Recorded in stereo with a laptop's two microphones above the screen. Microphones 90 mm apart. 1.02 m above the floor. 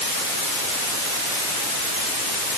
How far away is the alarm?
No alarm in this recording.